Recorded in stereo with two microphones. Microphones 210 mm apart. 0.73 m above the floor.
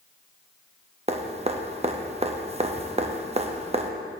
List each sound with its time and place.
1.1 s dripping: 30° right (ahead or behind), 0.6 m